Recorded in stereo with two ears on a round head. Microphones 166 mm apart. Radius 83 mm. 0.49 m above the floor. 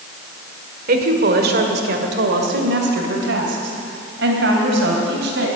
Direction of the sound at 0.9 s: 50° right (ahead or behind).